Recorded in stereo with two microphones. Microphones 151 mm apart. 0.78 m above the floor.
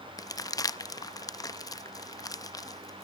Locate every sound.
0.2 s crumpling: 25° left (ahead or behind), 0.5 m